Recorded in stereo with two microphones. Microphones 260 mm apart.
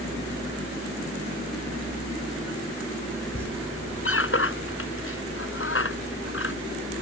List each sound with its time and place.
3.4 s a squeak: 50° left (ahead or behind)